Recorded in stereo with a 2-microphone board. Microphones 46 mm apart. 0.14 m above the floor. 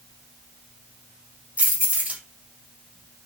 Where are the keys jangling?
35° right (ahead or behind), 1.9 m.